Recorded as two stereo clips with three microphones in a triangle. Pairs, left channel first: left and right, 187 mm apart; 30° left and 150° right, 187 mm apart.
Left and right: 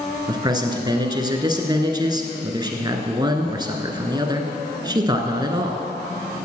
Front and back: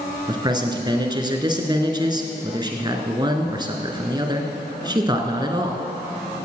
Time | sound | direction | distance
0.3 | a man speaking | 120° right | 1.1 m